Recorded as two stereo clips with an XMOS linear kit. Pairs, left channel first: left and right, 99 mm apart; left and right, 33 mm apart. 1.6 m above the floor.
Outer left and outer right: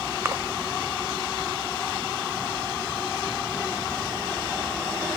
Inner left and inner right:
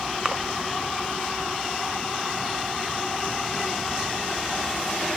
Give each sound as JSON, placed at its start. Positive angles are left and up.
{"t": 0.2, "sound": "a splash", "side_deg": -25, "distance_m": 0.6}